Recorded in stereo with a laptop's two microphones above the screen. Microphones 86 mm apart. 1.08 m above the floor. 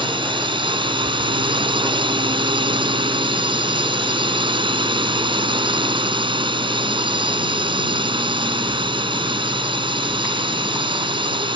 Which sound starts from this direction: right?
A drone, at 0.0 s.